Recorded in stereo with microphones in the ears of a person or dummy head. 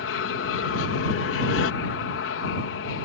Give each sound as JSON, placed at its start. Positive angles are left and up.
{"t": 0.0, "sound": "an aircraft", "side_deg": 65}